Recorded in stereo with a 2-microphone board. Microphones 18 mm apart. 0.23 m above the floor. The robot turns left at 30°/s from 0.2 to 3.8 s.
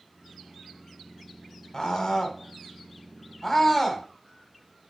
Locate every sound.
1.7 s a scream: 35° left (ahead or behind), 1.8 m; by 4.1 s 15° left (ahead or behind), 1.8 m